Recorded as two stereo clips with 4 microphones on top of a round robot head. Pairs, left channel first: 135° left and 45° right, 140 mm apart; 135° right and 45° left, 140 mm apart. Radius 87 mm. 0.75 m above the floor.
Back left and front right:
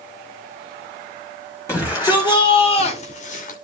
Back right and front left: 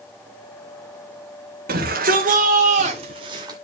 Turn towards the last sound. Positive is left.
turn(degrees=110)